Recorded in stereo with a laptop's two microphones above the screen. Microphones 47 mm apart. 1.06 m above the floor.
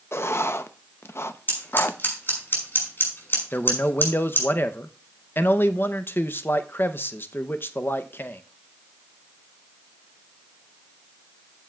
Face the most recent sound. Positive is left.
turn(degrees=45)  # may be behind; listen again after turning